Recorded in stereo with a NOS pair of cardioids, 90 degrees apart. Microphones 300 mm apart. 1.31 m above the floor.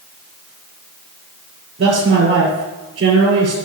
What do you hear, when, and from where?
1.8 s a man speaking: 55° right, 3.5 m